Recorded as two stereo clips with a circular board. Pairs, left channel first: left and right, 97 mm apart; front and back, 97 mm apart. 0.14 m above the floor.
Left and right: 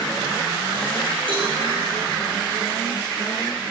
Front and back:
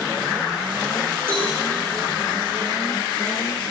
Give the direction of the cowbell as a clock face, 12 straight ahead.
4 o'clock.